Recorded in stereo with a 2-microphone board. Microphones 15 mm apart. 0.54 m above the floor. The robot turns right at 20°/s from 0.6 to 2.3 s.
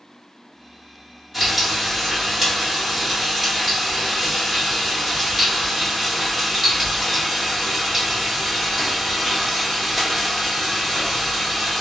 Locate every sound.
1.3 s frying: 5° right (ahead or behind), 1.2 m; by 11.8 s 20° right (ahead or behind), 1.2 m